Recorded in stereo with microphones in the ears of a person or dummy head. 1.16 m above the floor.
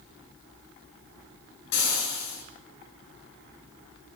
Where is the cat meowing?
I don't hear a cat meowing.